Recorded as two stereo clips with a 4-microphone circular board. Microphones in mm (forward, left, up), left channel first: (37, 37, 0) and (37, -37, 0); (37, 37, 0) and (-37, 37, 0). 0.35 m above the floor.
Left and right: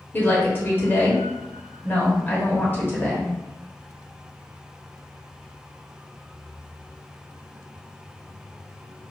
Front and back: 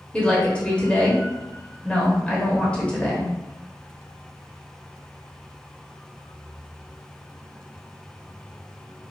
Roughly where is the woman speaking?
Ahead left.